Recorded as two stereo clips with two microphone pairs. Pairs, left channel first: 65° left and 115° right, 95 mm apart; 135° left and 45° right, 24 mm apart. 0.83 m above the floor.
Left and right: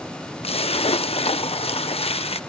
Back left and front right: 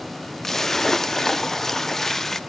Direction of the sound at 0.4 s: 60° left.